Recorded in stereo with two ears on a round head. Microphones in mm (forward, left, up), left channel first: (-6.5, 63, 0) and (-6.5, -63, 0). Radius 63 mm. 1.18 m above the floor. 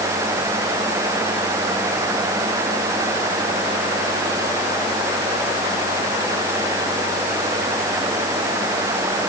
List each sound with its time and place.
Only background noise.